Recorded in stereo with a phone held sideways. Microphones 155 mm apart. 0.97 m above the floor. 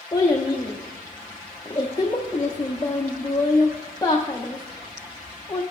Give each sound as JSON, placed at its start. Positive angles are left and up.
{"t": 0.1, "sound": "a child speaking", "side_deg": 25, "distance_m": 0.7}